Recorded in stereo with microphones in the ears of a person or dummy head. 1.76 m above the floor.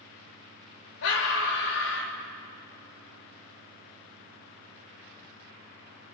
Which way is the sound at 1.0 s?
65° left (ahead or behind).